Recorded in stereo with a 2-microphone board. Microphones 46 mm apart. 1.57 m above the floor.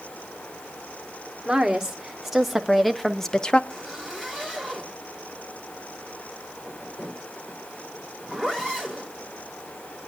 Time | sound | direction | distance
1.4 | a woman speaking | 10° right (ahead or behind) | 1.7 m
3.7 | a zipper | 20° left (ahead or behind) | 4.5 m